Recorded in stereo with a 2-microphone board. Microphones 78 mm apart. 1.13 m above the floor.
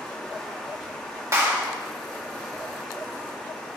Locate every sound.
0.0 s running water: 10° left (ahead or behind), 1.1 m
1.3 s a clap: 40° right (ahead or behind), 1.9 m